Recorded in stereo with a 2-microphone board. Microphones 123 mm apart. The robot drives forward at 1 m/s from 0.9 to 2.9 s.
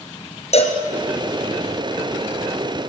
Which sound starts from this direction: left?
A cowbell, at 0.5 s.